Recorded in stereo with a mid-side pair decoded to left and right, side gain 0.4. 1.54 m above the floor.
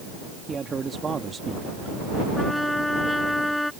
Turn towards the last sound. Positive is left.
turn(degrees=10)